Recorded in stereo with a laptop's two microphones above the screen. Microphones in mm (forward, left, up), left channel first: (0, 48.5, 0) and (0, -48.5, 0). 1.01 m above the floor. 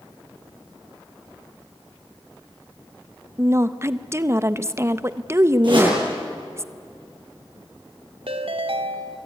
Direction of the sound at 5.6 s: 55° right (ahead or behind).